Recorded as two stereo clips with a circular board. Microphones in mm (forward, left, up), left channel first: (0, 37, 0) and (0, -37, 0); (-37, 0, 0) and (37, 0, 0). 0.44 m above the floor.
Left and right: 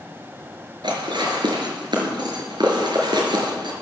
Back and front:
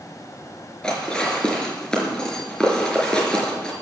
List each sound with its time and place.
0.8 s dishes clattering: 100° right, 4.5 m